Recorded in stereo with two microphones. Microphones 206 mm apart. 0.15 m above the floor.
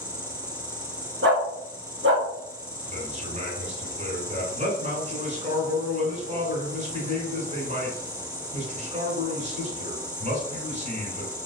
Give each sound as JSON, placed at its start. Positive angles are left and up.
{"t": 0.0, "sound": "an insect", "side_deg": -5, "distance_m": 0.8}
{"t": 1.2, "sound": "a dog barking", "side_deg": -65, "distance_m": 0.9}
{"t": 2.9, "sound": "a man speaking", "side_deg": -35, "distance_m": 1.7}